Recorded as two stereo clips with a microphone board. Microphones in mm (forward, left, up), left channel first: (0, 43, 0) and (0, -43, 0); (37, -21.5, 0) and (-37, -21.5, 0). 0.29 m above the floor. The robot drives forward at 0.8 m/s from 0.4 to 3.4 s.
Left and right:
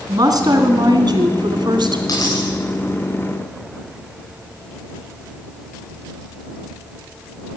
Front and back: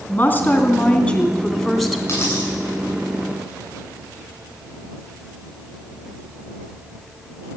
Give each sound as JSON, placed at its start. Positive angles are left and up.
{"t": 0.1, "sound": "a woman speaking", "azimuth_deg": -60, "distance_m": 2.5}
{"t": 2.1, "sound": "a dropped coin", "azimuth_deg": 55, "distance_m": 9.5}